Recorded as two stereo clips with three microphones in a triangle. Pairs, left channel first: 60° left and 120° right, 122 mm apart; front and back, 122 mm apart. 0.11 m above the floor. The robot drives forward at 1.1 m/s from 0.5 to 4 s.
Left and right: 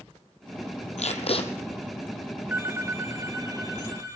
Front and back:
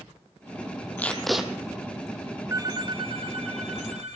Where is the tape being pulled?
75° left, 1.5 m; by 1.5 s 100° left, 1.4 m.